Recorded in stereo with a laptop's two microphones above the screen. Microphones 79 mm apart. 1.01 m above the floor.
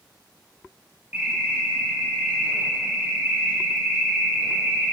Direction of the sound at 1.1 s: 25° right (ahead or behind).